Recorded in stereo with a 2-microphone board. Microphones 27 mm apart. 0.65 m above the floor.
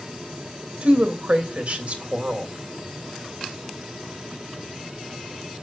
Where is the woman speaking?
60° right (ahead or behind), 2.5 m.